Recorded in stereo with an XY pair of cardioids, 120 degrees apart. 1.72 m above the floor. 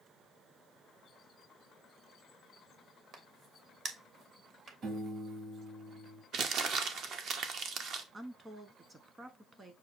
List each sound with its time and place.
3.1 s a crack: 45° right, 1.0 m
4.8 s a piano: 55° right, 2.0 m
6.3 s crumpling: 60° right, 0.7 m
8.1 s a woman speaking: 25° right, 1.1 m